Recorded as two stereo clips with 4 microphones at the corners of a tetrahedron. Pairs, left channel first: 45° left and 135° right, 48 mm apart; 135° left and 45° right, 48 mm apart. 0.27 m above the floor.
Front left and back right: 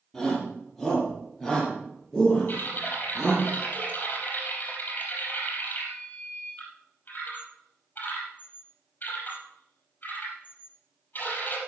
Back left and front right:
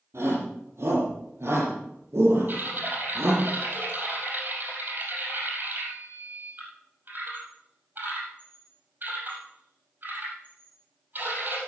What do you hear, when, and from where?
0.1 s a shout: 45° right, 7.5 m
2.5 s typing on a keyboard: straight ahead, 4.5 m